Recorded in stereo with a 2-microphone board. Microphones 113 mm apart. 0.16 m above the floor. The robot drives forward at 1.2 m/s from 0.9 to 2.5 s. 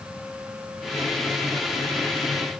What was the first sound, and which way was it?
Only background noise.